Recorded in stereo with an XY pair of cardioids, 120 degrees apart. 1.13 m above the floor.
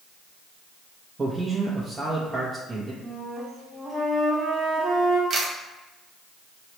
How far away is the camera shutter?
About 0.8 m.